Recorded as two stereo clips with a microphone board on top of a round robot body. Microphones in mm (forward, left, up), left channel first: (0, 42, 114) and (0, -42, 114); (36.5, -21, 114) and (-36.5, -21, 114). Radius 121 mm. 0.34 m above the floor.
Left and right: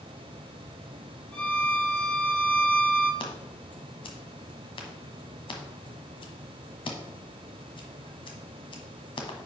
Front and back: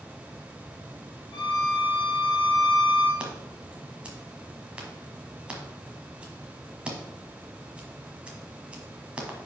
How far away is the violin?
About 1.7 m.